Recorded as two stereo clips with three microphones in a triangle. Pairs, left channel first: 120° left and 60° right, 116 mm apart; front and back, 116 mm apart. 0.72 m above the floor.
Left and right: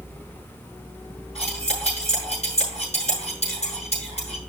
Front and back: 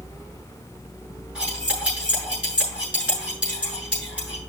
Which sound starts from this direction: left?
Cutlery clinking, at 1.4 s.